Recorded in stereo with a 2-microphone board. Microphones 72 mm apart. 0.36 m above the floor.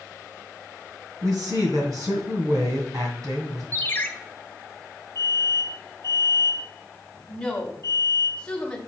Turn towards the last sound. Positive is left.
turn(degrees=15)  # may be behind; listen again after turning